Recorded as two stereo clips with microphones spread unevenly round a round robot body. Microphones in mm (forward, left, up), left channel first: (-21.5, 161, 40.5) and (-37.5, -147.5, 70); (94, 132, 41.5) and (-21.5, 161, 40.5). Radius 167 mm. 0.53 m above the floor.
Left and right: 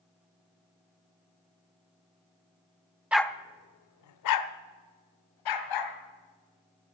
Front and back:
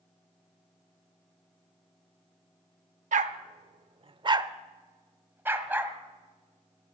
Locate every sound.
3.1 s a dog barking: straight behind, 0.6 m; by 6.0 s 90° left, 2.0 m